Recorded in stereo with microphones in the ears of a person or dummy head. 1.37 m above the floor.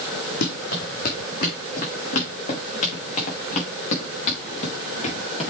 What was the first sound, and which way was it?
Running footsteps, 55° left (ahead or behind).